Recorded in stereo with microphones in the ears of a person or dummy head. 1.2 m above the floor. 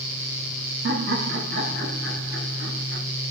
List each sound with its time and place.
0.8 s laughter: 55° right (ahead or behind), 1.0 m